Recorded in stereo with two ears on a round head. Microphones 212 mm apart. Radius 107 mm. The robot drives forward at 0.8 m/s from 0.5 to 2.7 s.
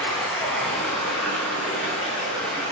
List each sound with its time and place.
0.0 s running water: centre (ahead or behind), 1.6 m